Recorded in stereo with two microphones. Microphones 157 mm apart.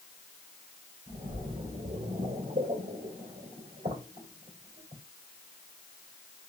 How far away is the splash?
About 2 m.